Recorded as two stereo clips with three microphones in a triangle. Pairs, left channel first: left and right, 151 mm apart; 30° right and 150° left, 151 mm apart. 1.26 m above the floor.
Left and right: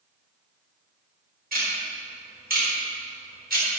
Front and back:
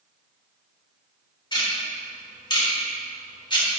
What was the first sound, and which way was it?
Ticking, 90° right.